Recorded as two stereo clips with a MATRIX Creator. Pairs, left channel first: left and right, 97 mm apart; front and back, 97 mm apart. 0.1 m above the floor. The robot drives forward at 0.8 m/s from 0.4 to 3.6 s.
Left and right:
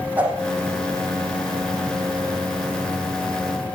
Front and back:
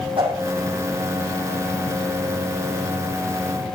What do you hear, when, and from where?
0.2 s a whoosh: 160° right, 5 m